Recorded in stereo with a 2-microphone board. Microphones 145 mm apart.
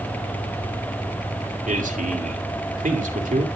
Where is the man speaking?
70° right (ahead or behind), 2.5 m.